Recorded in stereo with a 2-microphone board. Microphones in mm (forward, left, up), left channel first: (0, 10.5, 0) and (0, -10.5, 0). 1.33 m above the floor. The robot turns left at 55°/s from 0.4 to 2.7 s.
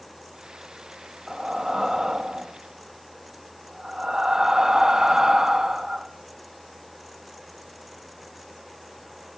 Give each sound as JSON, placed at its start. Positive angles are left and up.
{"t": 1.3, "sound": "breathing", "side_deg": -15, "distance_m": 0.7}